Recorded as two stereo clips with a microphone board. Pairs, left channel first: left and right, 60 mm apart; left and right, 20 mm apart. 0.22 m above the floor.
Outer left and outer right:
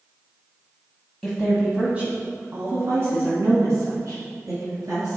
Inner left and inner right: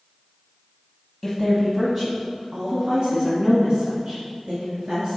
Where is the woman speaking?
Centre (ahead or behind), 1.2 m; by 5.2 s 70° right (ahead or behind), 3 m.